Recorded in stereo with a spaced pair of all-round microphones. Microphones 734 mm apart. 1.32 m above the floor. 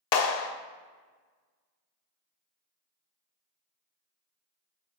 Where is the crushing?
I don't hear crushing.